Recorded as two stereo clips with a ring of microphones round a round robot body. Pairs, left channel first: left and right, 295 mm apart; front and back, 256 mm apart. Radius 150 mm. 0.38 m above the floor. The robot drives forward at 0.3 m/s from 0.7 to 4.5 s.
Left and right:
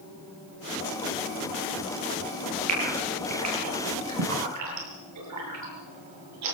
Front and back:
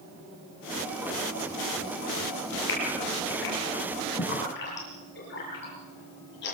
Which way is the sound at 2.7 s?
55° right.